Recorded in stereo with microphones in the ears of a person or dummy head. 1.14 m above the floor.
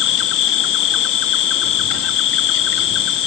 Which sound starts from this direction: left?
An insect, at 0.0 s.